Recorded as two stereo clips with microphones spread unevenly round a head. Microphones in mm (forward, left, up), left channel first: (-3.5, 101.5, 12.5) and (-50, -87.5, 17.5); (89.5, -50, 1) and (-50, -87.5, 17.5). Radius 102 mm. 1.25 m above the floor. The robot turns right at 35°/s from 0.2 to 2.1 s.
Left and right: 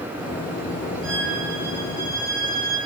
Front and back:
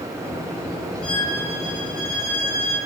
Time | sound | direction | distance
1.0 | a violin | 70° right | 7.5 m